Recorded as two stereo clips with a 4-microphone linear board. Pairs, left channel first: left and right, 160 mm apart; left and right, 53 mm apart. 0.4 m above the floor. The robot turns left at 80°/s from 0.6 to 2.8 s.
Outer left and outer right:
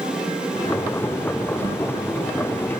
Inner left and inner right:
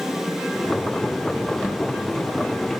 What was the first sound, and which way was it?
A whoosh, 45° left (ahead or behind).